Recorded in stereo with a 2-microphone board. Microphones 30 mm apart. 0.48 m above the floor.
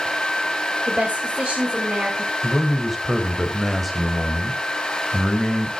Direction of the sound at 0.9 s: 50° right (ahead or behind).